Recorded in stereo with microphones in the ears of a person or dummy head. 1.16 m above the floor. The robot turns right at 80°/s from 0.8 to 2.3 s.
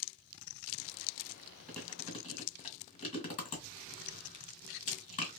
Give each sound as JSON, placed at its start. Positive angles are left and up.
{"t": 1.7, "sound": "chewing", "side_deg": 0, "distance_m": 1.6}